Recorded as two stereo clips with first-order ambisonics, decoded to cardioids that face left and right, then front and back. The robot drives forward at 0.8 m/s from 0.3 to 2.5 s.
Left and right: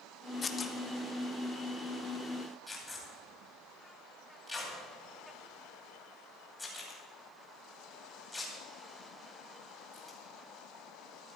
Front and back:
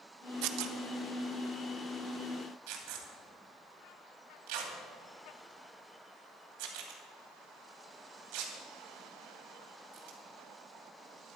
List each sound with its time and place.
0.4 s tearing paper: 160° left, 0.7 m; by 10.2 s 175° left, 2.5 m